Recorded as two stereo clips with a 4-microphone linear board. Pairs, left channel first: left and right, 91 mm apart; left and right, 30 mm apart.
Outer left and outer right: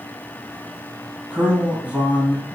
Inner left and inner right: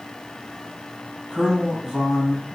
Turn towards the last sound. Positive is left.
turn(degrees=-20)  # may be behind; listen again after turning